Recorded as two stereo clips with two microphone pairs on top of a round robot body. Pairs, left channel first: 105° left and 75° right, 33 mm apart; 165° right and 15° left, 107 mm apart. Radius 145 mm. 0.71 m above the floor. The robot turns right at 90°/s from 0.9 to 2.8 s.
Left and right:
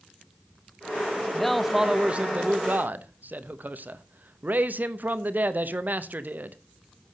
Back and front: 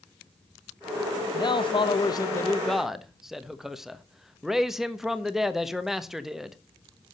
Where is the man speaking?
160° left, 1.3 m; by 6.6 s 70° right, 1.3 m.